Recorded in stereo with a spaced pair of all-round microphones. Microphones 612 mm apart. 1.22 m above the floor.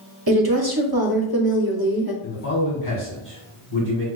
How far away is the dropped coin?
No dropped coin in this recording.